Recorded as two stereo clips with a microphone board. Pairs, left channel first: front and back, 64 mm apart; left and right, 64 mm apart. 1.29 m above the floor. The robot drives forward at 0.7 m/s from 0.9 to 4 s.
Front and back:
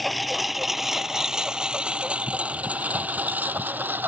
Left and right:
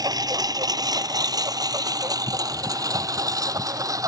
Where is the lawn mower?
90° right; by 4.1 s 120° right.